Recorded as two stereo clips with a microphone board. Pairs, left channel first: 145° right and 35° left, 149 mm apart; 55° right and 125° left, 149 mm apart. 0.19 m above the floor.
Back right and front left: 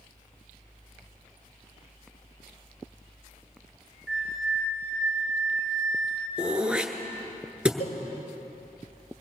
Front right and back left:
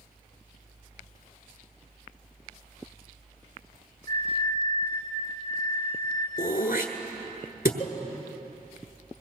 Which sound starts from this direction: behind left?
A flute, at 4.1 s.